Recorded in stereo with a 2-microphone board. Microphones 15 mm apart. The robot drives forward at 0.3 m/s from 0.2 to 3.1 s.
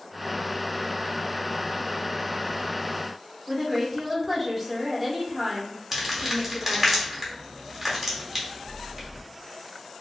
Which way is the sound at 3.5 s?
15° right (ahead or behind).